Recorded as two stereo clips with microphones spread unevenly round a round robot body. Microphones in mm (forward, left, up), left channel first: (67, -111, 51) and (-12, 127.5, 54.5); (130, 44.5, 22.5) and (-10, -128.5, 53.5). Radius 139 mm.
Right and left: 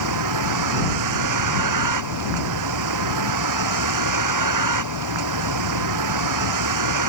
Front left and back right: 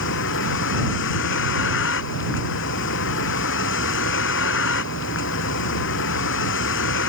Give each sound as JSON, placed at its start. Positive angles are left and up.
{"t": 0.0, "sound": "a vehicle", "azimuth_deg": 100}